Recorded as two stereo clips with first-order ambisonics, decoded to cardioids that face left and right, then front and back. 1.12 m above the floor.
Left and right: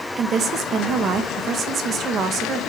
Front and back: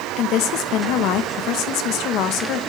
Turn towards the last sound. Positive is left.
turn(degrees=-35)